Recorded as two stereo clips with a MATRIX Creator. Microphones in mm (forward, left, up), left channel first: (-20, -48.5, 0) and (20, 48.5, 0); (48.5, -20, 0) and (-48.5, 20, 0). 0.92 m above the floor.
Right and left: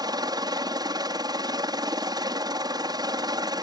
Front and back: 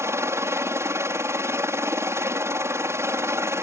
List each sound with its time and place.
0.0 s a helicopter: 100° left